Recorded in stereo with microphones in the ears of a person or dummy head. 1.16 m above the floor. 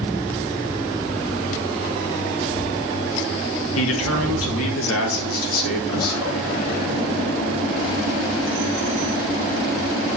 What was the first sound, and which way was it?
A man speaking, 75° left (ahead or behind).